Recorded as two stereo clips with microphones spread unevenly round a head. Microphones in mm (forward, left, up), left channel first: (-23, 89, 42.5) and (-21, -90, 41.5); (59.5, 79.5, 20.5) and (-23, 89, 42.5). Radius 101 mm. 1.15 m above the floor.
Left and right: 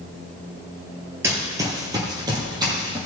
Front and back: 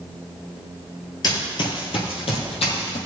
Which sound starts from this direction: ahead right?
Running footsteps, at 1.2 s.